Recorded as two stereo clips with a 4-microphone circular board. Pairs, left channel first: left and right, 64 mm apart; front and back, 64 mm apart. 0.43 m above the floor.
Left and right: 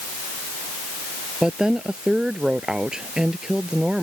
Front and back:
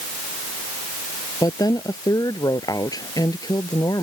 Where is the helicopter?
No helicopter in this recording.